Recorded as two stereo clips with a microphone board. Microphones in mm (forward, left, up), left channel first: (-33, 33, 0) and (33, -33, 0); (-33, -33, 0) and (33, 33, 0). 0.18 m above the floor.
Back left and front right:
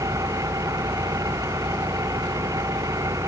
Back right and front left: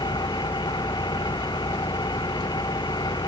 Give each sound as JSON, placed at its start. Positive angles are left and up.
{"t": 0.0, "sound": "an engine running", "azimuth_deg": -100}